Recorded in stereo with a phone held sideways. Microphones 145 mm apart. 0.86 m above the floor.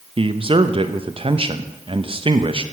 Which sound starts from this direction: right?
A man speaking, at 0.2 s.